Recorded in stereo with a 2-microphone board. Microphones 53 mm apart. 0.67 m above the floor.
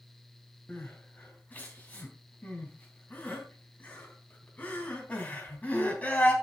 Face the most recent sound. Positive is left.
turn(degrees=25)  # may be behind; listen again after turning